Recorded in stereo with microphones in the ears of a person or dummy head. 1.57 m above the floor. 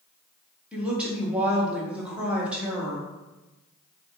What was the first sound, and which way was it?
A woman speaking, 5° right (ahead or behind).